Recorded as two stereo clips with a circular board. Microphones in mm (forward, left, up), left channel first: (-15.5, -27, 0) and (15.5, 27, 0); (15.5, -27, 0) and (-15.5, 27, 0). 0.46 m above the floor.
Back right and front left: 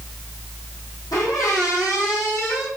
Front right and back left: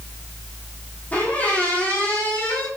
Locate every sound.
1.1 s a squeak: 125° right, 3.5 m